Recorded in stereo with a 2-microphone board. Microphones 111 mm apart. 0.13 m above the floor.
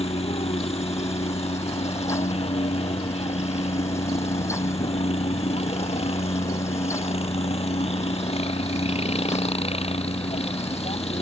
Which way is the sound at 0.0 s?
65° left (ahead or behind).